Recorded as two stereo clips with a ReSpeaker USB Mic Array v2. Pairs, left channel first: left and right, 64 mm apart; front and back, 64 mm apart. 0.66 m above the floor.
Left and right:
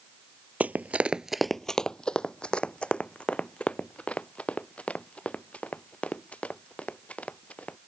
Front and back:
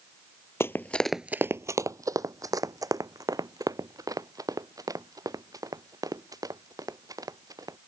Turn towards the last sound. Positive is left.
turn(degrees=160)